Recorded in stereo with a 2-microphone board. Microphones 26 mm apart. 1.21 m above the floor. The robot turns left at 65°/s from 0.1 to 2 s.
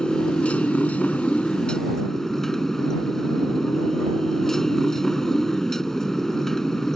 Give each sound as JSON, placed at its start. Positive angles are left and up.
{"t": 0.0, "sound": "a motorcycle", "azimuth_deg": 140}